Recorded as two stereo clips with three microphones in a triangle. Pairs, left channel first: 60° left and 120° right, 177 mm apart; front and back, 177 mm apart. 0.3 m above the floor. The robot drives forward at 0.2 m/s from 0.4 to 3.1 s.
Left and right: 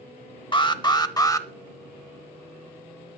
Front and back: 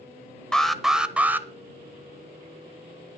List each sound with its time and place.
0.5 s an alarm: 85° left, 0.7 m; by 1.5 s 115° left, 0.7 m